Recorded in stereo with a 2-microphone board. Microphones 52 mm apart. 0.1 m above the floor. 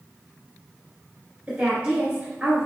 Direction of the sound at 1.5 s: 20° right (ahead or behind).